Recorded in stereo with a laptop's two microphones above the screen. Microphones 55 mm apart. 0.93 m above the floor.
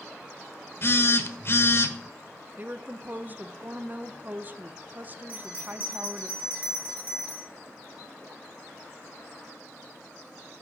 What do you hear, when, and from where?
0.8 s a phone buzzing: 45° left (ahead or behind), 1.0 m
2.6 s a woman speaking: 35° right (ahead or behind), 0.6 m
5.3 s a bell: 30° right (ahead or behind), 3.5 m